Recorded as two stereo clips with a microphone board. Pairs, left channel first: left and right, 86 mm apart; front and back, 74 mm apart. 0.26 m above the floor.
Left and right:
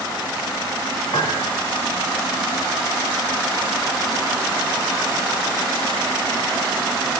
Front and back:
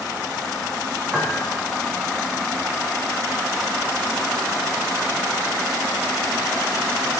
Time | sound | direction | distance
1.1 | a piano | 95° left | 0.9 m